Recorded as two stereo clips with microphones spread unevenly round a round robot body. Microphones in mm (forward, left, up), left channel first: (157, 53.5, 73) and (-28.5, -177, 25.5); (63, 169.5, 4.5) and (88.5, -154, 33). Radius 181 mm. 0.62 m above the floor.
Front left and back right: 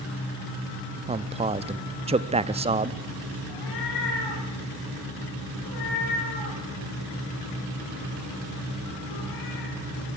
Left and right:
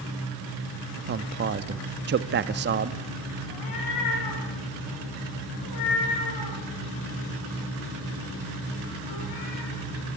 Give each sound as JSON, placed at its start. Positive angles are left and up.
{"t": 1.1, "sound": "a man speaking", "azimuth_deg": -115, "distance_m": 0.6}
{"t": 3.5, "sound": "a cat meowing", "azimuth_deg": 75, "distance_m": 8.0}